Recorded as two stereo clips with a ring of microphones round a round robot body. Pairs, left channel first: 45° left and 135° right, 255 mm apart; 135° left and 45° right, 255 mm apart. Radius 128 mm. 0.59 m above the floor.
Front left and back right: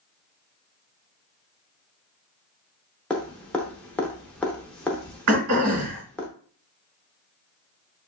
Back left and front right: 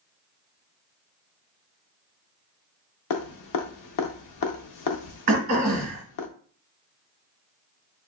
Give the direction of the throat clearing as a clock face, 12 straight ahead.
3 o'clock.